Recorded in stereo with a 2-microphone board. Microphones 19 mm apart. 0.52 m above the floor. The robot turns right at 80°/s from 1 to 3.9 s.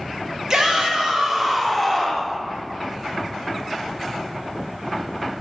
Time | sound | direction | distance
0.5 | a shout | 55° right | 1.2 m